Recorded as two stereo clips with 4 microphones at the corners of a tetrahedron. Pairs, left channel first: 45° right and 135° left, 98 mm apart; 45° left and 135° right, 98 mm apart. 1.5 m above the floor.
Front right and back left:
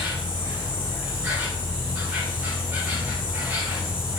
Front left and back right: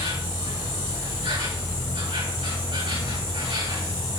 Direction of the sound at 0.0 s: 150° right.